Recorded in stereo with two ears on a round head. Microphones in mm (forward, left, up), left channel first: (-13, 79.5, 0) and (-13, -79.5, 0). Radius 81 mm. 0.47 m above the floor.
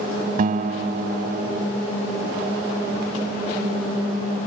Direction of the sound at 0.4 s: 50° right (ahead or behind).